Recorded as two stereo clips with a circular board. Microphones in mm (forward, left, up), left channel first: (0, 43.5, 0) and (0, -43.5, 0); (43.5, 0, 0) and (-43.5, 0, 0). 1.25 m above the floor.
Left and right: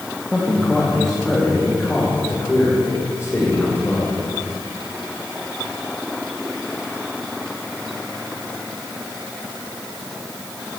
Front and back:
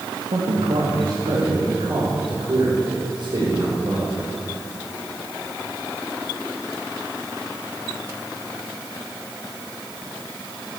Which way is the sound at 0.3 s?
175° right.